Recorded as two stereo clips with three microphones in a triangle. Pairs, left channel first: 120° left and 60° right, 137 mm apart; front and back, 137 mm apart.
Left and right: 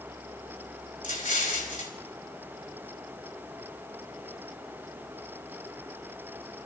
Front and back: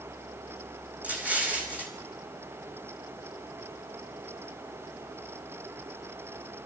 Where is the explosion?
100° left, 5 m.